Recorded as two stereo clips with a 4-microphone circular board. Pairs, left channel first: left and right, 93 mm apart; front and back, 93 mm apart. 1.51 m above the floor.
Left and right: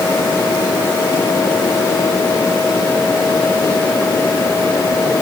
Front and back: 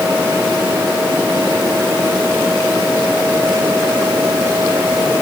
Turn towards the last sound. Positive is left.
No sound to turn to.